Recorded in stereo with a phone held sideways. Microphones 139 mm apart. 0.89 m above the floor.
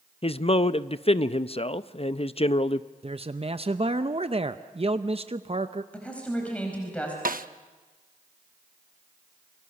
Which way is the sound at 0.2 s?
40° left (ahead or behind).